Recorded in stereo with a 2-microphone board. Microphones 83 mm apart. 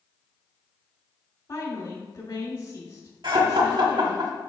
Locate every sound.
1.5 s a woman speaking: 55° left (ahead or behind), 3 m
3.2 s laughter: 65° right (ahead or behind), 1.7 m